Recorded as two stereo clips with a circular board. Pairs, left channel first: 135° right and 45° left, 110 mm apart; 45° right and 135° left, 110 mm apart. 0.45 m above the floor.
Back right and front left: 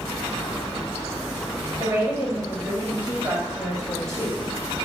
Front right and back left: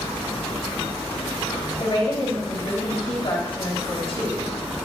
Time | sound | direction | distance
1.8 | a woman speaking | 20° right | 2.5 m